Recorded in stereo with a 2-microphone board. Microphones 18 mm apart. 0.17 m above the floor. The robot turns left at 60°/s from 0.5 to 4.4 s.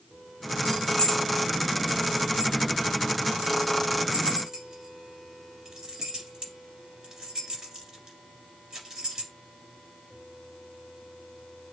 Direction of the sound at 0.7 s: 60° left (ahead or behind).